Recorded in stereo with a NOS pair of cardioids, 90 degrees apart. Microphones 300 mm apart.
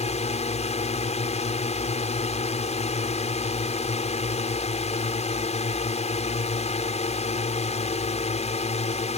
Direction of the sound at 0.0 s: 25° left.